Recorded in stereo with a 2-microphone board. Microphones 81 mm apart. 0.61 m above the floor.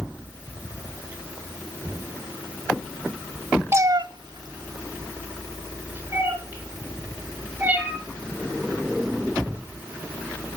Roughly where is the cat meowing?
Right.